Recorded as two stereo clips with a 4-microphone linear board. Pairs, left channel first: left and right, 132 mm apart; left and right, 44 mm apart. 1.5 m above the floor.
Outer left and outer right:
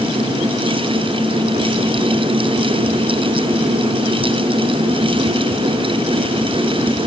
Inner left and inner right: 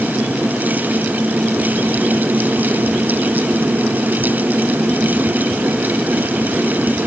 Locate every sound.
Only background noise.